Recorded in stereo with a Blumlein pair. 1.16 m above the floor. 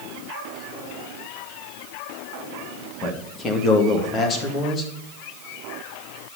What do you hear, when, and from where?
3.0 s a man speaking: 20° left, 2 m